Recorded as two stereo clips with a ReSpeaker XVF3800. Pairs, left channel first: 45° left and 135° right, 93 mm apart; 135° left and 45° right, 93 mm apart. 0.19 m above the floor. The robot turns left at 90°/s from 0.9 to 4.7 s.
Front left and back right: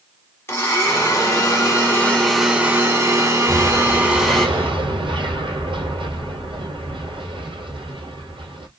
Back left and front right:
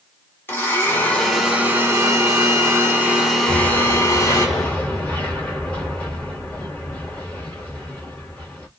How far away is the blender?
About 1.0 m.